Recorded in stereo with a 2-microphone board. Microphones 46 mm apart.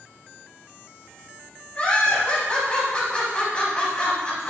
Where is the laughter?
25° left (ahead or behind), 1.0 m.